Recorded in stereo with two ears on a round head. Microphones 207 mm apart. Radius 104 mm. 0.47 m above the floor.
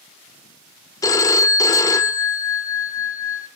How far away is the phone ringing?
About 0.5 m.